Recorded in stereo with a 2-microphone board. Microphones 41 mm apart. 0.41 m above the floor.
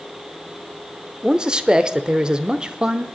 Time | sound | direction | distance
1.2 | a man speaking | 20° right (ahead or behind) | 0.9 m